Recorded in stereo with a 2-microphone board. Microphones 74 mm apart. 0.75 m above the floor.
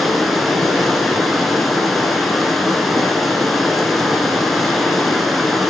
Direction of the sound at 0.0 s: Centre (ahead or behind).